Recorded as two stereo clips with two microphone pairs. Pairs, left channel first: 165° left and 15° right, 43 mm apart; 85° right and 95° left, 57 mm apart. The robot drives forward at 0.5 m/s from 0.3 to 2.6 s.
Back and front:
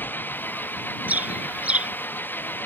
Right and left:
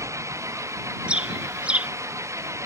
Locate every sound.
0.0 s an engine running: 120° left; by 2.7 s 125° left
1.1 s a bird: 30° left; by 1.9 s 35° left